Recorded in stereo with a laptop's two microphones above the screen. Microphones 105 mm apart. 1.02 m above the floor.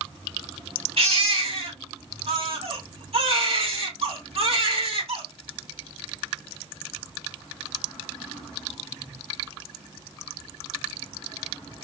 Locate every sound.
1.0 s a baby crying: 60° right (ahead or behind), 2.5 m